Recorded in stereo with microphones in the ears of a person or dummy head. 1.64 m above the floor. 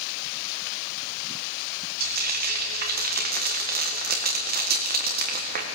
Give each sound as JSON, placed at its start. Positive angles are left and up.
{"t": 2.0, "sound": "frying", "side_deg": -50, "distance_m": 1.8}